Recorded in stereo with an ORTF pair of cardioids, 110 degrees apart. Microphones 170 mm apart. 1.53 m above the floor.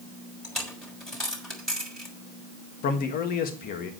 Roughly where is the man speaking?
Ahead left.